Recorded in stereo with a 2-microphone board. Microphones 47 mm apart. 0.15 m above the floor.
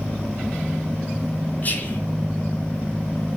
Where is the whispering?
40° left (ahead or behind), 2 m.